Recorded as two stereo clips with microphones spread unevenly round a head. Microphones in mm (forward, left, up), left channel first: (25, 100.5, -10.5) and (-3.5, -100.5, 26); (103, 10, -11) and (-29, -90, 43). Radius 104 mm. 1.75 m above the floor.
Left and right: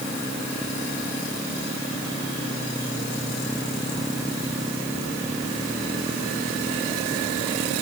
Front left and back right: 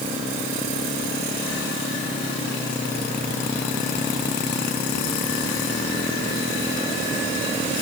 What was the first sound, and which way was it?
Only background noise.